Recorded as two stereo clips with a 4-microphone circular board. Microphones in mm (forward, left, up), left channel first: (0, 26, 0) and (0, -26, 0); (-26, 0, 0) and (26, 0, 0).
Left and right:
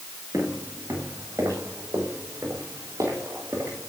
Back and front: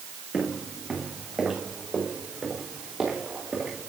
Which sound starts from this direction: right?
Footsteps, at 0.3 s.